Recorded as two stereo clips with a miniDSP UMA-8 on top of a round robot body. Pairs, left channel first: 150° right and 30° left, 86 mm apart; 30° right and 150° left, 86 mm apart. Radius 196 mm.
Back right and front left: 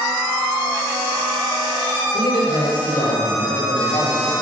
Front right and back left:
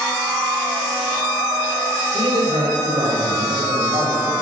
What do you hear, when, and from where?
2.1 s a man speaking: 175° right, 3.5 m